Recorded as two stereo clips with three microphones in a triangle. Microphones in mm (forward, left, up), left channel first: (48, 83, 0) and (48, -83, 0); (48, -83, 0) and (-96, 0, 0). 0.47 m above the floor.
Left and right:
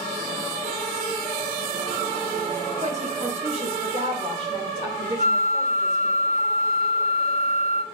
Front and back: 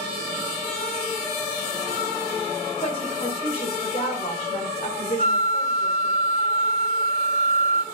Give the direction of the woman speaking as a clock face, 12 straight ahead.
2 o'clock.